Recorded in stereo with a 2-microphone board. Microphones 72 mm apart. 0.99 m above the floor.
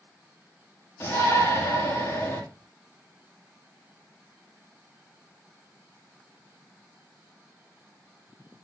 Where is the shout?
35° left (ahead or behind), 2 m.